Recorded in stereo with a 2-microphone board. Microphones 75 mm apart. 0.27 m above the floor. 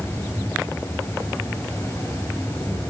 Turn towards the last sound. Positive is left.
turn(degrees=25)  # may be behind; listen again after turning